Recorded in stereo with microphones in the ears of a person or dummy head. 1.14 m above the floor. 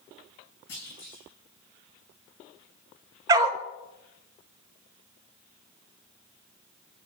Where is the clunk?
65° left (ahead or behind), 5.5 m.